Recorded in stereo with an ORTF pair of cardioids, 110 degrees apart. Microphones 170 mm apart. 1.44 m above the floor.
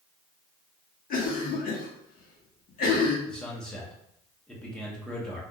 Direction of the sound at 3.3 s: 5° left.